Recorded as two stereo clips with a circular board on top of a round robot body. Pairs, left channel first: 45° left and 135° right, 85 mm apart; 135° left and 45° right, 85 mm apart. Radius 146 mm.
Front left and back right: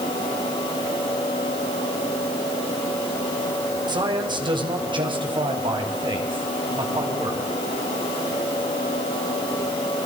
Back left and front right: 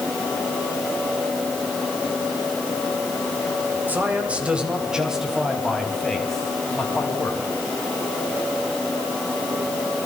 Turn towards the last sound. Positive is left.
turn(degrees=-145)